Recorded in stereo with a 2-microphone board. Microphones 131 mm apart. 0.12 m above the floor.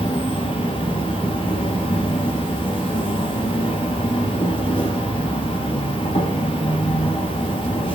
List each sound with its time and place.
0.0 s an insect: 40° left (ahead or behind), 3 m